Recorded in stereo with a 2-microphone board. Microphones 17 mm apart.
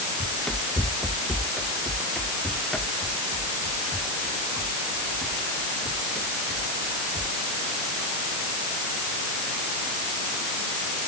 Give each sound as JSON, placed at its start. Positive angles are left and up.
{"t": 0.2, "sound": "running footsteps", "side_deg": 50}